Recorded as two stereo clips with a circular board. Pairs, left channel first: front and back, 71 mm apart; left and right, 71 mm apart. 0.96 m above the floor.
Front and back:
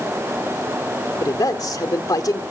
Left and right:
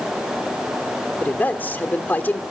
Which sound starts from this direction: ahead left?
A man speaking, at 1.2 s.